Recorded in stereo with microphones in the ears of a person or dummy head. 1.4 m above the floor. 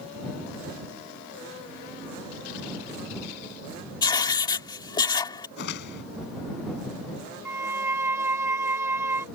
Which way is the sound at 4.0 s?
25° left (ahead or behind).